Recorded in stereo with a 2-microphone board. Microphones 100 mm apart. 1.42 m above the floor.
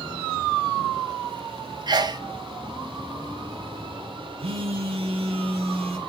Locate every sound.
1.9 s a sneeze: 45° right (ahead or behind), 0.6 m
4.4 s a phone buzzing: 70° right (ahead or behind), 1.1 m